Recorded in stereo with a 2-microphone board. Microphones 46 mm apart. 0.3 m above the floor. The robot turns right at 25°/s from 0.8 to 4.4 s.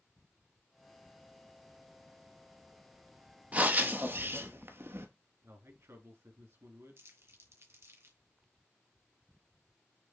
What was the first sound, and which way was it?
Breathing, 35° right (ahead or behind).